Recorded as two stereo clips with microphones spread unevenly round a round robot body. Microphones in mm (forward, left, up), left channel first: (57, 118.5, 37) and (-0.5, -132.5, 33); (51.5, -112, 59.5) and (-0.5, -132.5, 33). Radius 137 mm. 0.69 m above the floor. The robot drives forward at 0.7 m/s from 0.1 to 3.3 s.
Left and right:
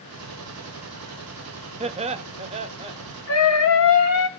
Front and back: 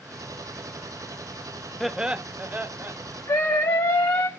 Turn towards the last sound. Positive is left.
turn(degrees=55)